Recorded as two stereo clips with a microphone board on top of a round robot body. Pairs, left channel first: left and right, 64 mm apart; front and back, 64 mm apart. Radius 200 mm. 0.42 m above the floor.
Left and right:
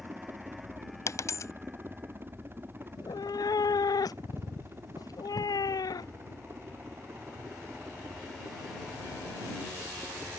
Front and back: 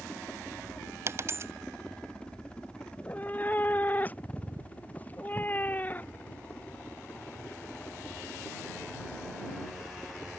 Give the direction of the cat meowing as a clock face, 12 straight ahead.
10 o'clock.